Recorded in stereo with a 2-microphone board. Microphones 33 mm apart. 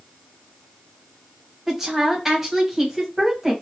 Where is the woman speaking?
15° right (ahead or behind), 1.4 m.